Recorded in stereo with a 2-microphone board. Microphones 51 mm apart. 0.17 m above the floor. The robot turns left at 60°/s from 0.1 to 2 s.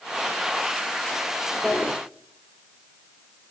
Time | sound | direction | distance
1.6 | a drawer | 20° left (ahead or behind) | 1.9 m